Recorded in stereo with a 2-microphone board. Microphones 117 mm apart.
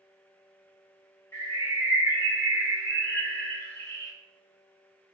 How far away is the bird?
About 0.8 m.